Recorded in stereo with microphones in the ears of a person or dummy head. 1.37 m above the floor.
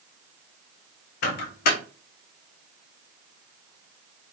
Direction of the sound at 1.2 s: 50° left (ahead or behind).